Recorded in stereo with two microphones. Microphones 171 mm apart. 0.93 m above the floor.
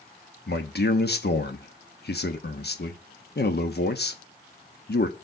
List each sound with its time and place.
0.5 s a man speaking: 70° left (ahead or behind), 1.1 m